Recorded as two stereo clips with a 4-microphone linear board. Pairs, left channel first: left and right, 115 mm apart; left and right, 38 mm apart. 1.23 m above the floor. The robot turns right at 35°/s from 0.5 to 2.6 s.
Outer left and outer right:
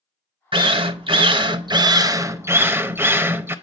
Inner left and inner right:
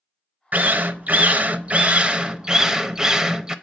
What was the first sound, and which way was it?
A drill, 100° right.